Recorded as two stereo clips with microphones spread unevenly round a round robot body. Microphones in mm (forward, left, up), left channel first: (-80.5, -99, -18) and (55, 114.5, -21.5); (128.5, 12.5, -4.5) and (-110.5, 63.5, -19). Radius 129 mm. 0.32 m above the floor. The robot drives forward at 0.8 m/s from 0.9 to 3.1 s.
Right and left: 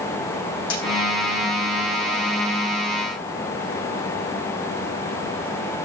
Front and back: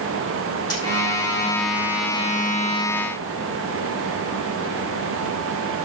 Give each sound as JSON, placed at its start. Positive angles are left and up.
{"t": 0.7, "sound": "a dropped coin", "azimuth_deg": -90, "distance_m": 5.0}